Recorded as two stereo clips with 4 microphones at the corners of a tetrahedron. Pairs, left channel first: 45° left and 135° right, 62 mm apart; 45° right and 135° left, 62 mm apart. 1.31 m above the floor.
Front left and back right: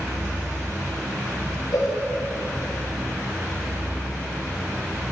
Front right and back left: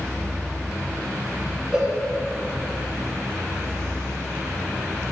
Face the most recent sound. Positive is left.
turn(degrees=65)